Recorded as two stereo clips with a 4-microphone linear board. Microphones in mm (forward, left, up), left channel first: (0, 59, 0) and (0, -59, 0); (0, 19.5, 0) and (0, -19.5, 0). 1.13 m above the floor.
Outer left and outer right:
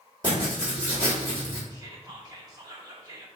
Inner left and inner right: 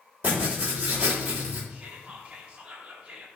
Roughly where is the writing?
Right.